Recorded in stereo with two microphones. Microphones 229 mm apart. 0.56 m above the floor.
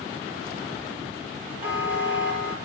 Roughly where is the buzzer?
Left.